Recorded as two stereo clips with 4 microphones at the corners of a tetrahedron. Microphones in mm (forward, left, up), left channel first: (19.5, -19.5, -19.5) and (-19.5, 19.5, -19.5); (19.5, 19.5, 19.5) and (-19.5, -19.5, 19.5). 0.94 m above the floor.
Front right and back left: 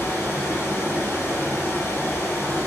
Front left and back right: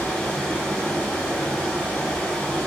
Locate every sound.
0.0 s running water: 15° right, 1.2 m